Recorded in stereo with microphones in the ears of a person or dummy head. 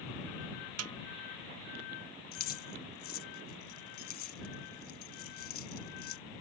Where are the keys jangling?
50° left (ahead or behind).